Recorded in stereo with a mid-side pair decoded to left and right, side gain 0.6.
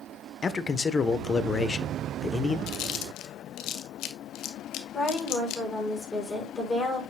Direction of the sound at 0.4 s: 25° left.